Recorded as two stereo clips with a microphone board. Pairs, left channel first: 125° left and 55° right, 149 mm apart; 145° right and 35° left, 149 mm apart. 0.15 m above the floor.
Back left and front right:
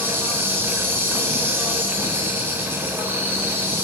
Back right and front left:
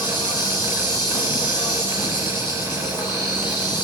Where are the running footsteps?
I don't hear running footsteps.